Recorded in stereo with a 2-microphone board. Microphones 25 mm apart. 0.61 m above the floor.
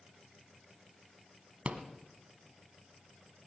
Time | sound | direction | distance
1.6 | a rattle | 75° right (ahead or behind) | 1.2 m